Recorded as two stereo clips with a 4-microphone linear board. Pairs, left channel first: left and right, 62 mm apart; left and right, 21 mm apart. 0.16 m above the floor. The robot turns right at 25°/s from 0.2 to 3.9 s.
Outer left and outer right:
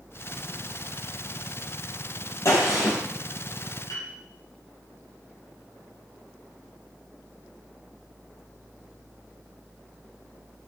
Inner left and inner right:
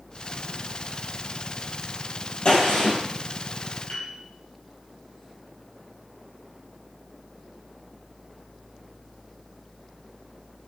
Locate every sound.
2.5 s a gunshot: 50° left (ahead or behind), 4.5 m; by 3.0 s 65° left (ahead or behind), 4.5 m
3.9 s a piano: 65° left (ahead or behind), 4 m